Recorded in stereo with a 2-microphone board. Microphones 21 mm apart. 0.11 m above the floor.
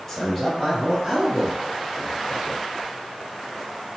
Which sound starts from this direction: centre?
A man speaking, at 0.1 s.